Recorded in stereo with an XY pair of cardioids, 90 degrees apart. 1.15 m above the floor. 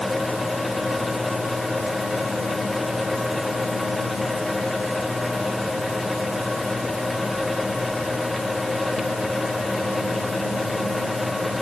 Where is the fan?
15° left.